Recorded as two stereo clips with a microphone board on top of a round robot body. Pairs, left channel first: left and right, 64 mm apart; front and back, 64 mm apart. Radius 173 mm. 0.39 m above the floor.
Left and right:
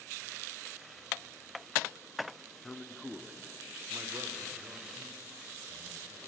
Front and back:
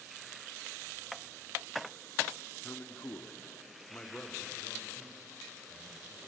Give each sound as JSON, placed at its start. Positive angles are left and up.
{"t": 2.6, "sound": "a man speaking", "azimuth_deg": 30, "distance_m": 1.6}